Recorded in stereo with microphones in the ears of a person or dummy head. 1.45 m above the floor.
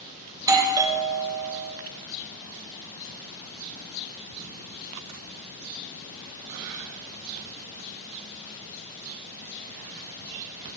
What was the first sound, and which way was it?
A doorbell, 15° right (ahead or behind).